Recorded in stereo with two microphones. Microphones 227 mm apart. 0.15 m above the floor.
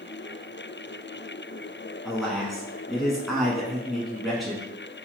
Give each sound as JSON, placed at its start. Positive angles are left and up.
{"t": 2.0, "sound": "a man speaking", "side_deg": 0, "distance_m": 1.2}